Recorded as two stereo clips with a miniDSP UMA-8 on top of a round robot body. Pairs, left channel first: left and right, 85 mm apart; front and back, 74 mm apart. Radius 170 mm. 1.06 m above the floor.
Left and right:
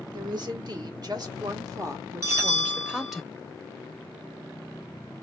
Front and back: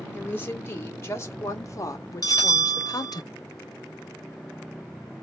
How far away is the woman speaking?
About 2 m.